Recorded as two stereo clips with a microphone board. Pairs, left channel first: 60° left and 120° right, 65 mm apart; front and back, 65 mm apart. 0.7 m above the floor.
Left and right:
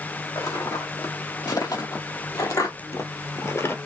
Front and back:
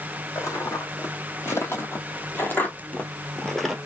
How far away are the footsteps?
About 2 m.